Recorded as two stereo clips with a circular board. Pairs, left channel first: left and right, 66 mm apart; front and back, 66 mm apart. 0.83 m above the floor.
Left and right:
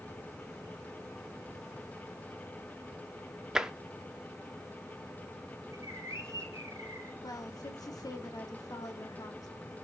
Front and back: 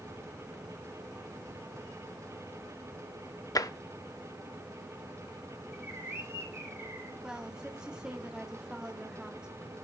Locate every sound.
3.5 s tapping: 10° right, 0.5 m
5.7 s a bird: 130° right, 3 m
7.2 s a woman speaking: 105° left, 1.5 m